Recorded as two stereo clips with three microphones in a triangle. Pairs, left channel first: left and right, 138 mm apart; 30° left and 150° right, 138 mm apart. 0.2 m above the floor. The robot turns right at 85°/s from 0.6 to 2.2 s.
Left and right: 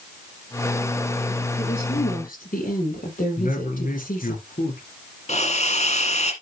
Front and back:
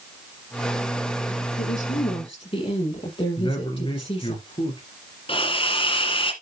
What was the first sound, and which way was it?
A woman speaking, 25° left.